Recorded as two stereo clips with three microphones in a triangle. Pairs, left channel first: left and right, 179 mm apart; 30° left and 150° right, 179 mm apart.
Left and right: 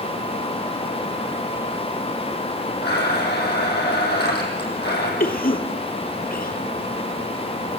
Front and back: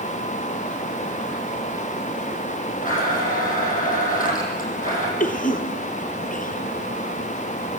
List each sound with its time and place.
2.8 s a blender: 70° left, 5.5 m
5.2 s a cough: 65° left, 3 m